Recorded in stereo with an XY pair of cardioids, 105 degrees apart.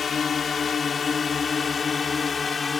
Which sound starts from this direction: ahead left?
A drone, at 0.0 s.